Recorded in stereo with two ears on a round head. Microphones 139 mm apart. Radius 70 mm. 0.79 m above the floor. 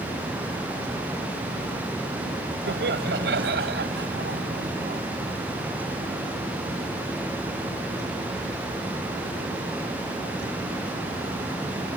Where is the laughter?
80° right; by 5.0 s 70° right (ahead or behind).